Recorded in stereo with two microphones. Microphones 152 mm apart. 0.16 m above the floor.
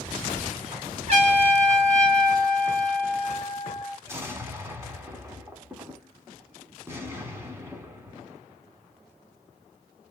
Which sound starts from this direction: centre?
An explosion, at 4.1 s.